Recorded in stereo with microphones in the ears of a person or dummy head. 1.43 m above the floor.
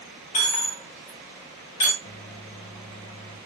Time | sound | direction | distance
0.3 | a dropped coin | 35° left (ahead or behind) | 1.7 m
2.0 | a microwave | 35° left (ahead or behind) | 1.1 m